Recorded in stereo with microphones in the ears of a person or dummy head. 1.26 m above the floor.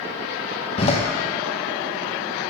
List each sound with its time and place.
0.8 s a door slam: 35° left (ahead or behind), 1.1 m